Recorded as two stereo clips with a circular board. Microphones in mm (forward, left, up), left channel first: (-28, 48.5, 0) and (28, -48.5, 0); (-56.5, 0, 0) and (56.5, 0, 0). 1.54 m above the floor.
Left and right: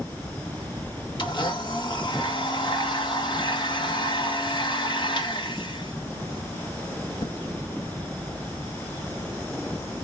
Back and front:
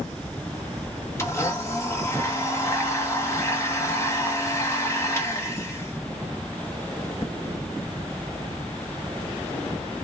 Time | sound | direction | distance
1.2 | a blender | 125° left | 1.1 m